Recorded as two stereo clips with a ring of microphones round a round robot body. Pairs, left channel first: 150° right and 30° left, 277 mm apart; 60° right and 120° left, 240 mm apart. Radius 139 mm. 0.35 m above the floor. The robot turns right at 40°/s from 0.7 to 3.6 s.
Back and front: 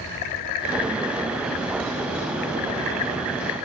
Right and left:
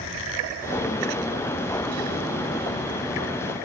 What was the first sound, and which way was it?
Only background noise.